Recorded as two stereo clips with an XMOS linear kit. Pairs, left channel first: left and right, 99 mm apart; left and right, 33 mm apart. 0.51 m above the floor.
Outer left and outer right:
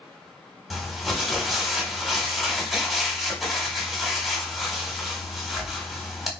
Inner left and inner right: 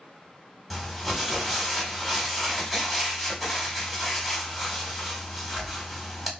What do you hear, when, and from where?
0.7 s crumpling: centre (ahead or behind), 1.1 m